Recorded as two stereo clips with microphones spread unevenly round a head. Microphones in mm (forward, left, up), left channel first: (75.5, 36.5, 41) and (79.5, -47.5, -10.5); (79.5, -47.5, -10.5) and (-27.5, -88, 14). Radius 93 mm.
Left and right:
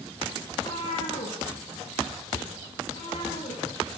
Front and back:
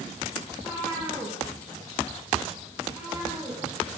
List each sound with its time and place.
0.5 s a cat meowing: 100° left, 8.5 m; by 4.0 s 110° left, 13 m